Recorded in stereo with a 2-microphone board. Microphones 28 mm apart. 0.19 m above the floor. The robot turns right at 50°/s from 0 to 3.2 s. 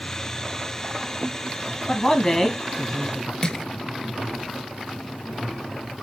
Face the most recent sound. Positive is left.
turn(degrees=30)  # may be behind; listen again after turning